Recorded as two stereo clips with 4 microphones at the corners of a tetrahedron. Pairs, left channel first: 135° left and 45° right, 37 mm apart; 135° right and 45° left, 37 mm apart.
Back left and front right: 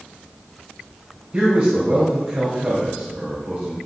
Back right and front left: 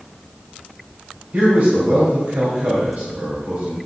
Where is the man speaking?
30° left, 2.5 m.